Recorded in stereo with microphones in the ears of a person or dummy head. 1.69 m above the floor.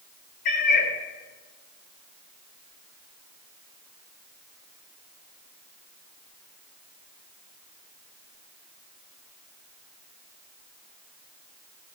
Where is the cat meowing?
70° left (ahead or behind), 4 m.